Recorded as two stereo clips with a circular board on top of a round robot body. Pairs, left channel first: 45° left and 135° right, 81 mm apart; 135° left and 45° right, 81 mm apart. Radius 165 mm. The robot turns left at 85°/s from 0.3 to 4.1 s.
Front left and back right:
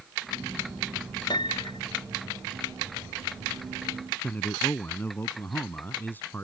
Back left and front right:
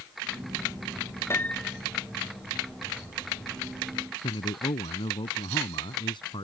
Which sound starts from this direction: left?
A piano, at 1.3 s.